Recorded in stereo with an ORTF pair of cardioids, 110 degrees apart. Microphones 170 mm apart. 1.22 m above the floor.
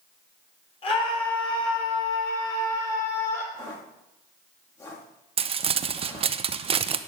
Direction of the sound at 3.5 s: 20° left.